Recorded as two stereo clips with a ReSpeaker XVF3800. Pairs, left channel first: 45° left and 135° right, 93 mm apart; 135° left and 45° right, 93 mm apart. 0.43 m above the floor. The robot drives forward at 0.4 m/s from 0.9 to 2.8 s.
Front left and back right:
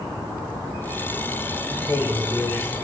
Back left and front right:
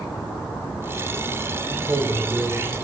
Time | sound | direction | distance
1.7 | a man speaking | straight ahead | 1.9 m